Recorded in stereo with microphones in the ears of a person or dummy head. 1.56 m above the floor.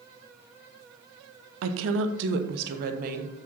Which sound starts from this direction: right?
A woman speaking, at 1.6 s.